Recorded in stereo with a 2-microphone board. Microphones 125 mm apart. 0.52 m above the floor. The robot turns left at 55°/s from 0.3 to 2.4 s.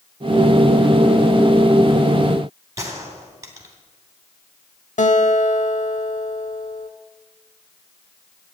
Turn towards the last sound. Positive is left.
turn(degrees=85)